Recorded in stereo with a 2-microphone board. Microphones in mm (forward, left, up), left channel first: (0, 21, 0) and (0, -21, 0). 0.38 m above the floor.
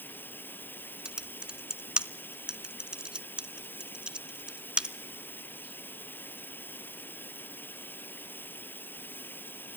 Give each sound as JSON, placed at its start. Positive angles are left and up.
{"t": 0.0, "sound": "running water", "side_deg": 60, "distance_m": 1.2}
{"t": 1.1, "sound": "typing on a keyboard", "side_deg": -25, "distance_m": 0.5}